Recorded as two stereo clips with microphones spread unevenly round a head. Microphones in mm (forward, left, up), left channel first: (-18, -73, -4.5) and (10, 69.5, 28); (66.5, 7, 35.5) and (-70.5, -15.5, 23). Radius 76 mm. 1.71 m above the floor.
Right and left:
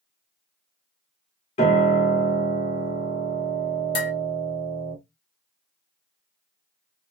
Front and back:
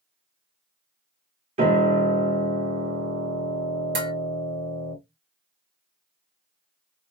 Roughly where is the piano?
Behind right.